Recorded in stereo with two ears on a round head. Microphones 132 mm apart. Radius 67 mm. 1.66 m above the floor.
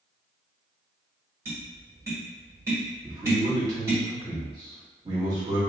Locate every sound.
1.4 s tapping: 20° right (ahead or behind), 1.6 m
3.0 s a man speaking: 30° right (ahead or behind), 1.4 m